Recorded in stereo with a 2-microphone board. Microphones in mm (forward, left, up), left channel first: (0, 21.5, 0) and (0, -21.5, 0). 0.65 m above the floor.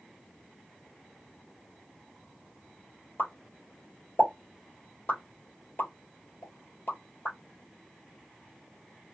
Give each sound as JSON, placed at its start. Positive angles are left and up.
{"t": 3.2, "sound": "a pop", "side_deg": 55, "distance_m": 1.6}